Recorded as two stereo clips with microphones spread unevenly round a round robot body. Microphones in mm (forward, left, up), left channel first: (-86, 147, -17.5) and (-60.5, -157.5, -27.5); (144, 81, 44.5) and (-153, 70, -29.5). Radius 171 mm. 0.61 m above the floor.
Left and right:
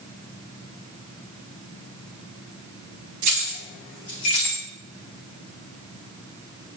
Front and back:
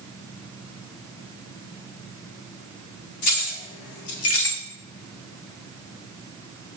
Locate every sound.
3.2 s keys jangling: 45° right, 1.0 m; by 4.6 s 65° left, 1.3 m